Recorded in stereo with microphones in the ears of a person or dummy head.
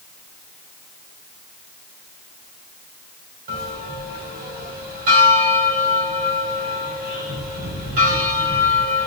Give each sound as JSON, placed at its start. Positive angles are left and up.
{"t": 3.5, "sound": "a bell", "side_deg": -45, "distance_m": 1.7}